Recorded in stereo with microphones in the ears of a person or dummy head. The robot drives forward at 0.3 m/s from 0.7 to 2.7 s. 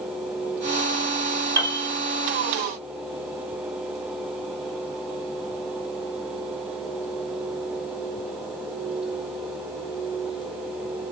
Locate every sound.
1.6 s a piano: 15° right (ahead or behind), 0.6 m; by 1.9 s 20° right (ahead or behind), 0.5 m